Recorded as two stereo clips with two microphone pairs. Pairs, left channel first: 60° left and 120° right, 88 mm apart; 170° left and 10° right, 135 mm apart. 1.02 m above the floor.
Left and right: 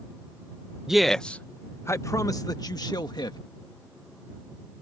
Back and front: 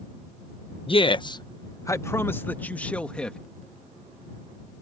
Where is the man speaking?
155° left; by 3.4 s 85° left.